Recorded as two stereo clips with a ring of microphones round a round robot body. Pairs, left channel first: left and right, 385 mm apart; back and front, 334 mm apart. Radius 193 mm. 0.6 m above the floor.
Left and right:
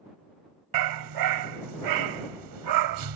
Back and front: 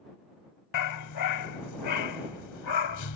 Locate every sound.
0.7 s a dog barking: 130° right